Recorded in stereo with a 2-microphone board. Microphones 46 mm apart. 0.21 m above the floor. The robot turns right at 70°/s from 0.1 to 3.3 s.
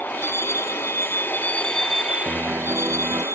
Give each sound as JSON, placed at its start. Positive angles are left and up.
{"t": 0.0, "sound": "a vehicle", "side_deg": 45}
{"t": 2.2, "sound": "a piano", "azimuth_deg": -170}